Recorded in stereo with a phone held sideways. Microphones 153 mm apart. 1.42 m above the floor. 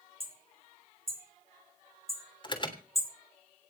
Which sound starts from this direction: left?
An alarm, at 2.4 s.